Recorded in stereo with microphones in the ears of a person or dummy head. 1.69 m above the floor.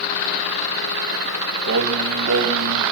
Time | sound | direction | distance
1.7 | singing | 65° right (ahead or behind) | 1.4 m